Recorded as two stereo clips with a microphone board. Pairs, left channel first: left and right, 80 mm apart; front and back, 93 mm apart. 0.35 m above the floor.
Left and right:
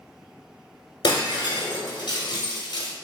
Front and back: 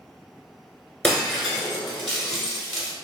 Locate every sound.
1.0 s breaking glass: 85° left, 1.0 m